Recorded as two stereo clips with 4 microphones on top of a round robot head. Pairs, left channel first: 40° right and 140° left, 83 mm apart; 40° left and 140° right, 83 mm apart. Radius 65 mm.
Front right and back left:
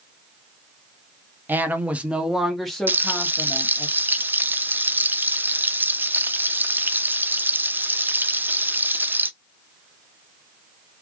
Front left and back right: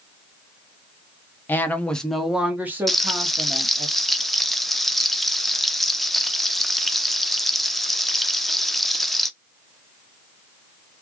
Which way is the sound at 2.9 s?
125° left.